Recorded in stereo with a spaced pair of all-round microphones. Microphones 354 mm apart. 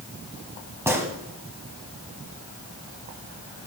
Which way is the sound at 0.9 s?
5° right (ahead or behind).